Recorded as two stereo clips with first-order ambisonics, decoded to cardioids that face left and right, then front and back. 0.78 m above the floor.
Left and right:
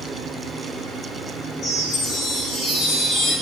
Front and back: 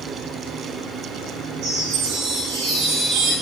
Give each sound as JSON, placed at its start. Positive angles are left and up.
{"t": 1.6, "sound": "a chime", "azimuth_deg": 145, "distance_m": 5.0}